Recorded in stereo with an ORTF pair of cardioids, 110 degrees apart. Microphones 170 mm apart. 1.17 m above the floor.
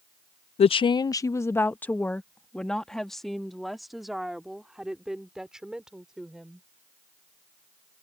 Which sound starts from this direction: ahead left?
A woman speaking, at 0.6 s.